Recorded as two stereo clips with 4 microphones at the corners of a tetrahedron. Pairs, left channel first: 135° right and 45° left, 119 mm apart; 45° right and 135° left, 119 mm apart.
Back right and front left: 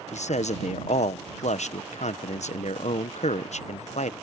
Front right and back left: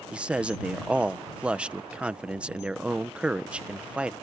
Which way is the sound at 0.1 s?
145° right.